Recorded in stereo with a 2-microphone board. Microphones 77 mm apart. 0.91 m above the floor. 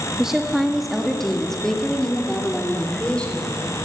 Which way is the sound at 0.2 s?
5° right (ahead or behind).